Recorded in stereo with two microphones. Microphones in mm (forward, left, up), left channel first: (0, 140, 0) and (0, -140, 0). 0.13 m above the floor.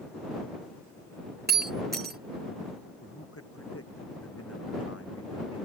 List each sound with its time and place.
1.5 s breaking glass: 35° right (ahead or behind)
3.0 s a man speaking: 50° left (ahead or behind)